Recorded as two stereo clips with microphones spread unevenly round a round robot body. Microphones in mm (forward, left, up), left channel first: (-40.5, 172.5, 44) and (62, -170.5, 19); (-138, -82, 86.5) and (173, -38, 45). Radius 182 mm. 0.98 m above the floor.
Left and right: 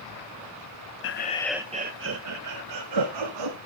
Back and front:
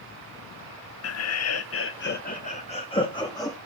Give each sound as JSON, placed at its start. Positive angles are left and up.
{"t": 1.0, "sound": "laughter", "azimuth_deg": 155, "distance_m": 1.1}